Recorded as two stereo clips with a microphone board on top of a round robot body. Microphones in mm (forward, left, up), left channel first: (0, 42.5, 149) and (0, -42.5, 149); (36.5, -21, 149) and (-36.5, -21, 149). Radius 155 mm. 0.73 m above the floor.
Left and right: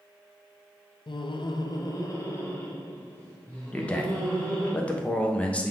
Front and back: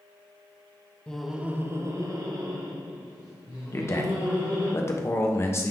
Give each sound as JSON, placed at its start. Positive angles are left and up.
{"t": 1.1, "sound": "laughter", "azimuth_deg": 80, "distance_m": 0.8}
{"t": 3.7, "sound": "a man speaking", "azimuth_deg": 25, "distance_m": 1.0}